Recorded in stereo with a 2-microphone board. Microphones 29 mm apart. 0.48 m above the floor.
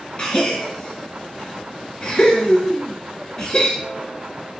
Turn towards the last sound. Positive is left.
turn(degrees=25)  # may be behind; listen again after turning